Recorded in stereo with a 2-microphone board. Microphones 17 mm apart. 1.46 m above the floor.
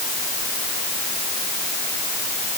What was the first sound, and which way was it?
Only background noise.